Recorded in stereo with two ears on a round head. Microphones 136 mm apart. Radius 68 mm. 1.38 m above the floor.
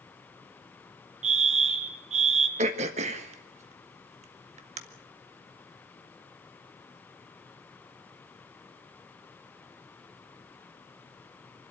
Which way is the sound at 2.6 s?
45° right (ahead or behind).